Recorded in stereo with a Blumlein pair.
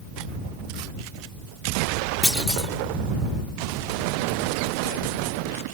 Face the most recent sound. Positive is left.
turn(degrees=5)